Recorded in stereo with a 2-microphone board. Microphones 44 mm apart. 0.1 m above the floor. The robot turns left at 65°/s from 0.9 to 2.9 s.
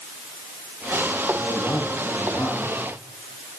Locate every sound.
1.4 s a man speaking: 120° left, 7 m; by 2.8 s 25° left, 7 m